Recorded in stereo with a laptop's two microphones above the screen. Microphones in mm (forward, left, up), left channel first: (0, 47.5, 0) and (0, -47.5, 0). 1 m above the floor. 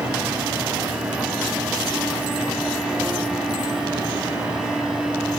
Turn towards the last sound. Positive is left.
turn(degrees=-10)  # may be behind; listen again after turning